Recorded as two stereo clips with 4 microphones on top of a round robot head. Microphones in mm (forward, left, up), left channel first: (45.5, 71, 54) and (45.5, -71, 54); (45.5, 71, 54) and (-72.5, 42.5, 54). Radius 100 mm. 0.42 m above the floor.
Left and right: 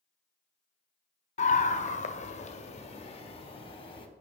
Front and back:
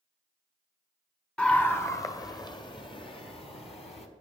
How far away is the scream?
About 1.3 m.